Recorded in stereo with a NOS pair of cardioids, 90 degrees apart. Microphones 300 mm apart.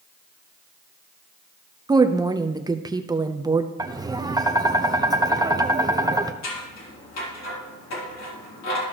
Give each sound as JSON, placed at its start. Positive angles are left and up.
{"t": 1.9, "sound": "a woman speaking", "azimuth_deg": -15, "distance_m": 0.7}
{"t": 3.8, "sound": "tapping", "azimuth_deg": -15, "distance_m": 0.8}
{"t": 6.4, "sound": "scissors", "azimuth_deg": 65, "distance_m": 3.5}